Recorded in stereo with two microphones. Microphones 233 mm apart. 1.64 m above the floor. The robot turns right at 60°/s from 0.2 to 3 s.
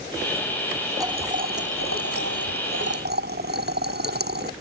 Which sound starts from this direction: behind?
Boiling, at 1.0 s.